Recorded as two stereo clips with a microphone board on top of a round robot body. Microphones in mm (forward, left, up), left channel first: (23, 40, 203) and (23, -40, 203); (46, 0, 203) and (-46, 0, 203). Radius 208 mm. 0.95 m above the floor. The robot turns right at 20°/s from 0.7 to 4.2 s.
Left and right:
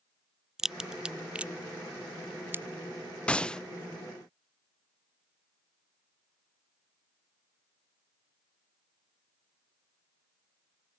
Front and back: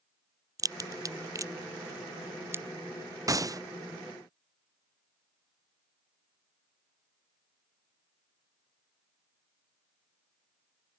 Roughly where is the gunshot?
Behind.